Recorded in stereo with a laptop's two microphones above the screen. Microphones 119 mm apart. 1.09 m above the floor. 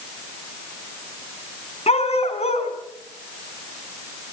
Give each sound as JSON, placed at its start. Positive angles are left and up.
{"t": 1.9, "sound": "a dog barking", "side_deg": 60, "distance_m": 4.5}